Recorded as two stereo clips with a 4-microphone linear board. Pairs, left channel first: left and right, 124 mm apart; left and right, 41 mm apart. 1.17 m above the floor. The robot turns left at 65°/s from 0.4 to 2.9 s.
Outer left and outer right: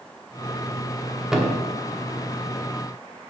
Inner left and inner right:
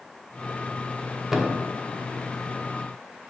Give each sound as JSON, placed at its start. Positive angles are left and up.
{"t": 1.3, "sound": "a thud", "side_deg": -5, "distance_m": 1.1}